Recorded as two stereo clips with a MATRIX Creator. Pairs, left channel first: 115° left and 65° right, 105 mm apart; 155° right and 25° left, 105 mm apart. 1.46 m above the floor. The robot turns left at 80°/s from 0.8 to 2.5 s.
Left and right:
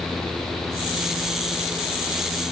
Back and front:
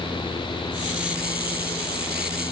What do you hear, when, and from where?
Only background noise.